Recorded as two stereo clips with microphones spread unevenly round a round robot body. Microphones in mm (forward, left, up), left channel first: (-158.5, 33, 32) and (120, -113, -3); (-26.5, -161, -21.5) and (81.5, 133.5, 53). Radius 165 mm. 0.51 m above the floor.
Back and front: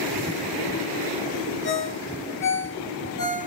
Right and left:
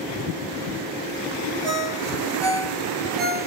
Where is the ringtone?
90° left, 5 m.